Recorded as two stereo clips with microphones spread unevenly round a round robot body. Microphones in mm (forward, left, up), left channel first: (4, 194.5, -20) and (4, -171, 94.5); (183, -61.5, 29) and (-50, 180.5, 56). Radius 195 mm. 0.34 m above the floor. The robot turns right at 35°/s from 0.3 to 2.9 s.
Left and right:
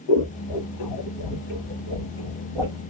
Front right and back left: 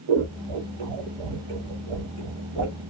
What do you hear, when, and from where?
0.1 s scissors: 100° left, 1.0 m; by 2.8 s 175° right, 1.0 m